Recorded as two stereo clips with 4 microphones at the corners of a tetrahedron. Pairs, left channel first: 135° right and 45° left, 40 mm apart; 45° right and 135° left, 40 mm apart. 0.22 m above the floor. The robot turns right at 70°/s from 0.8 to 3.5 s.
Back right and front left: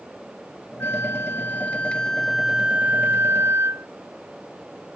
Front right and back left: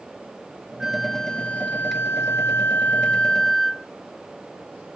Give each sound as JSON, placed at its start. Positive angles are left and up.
{"t": 0.8, "sound": "a flute", "azimuth_deg": -150}